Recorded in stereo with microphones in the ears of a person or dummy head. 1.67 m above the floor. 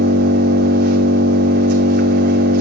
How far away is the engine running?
About 3 m.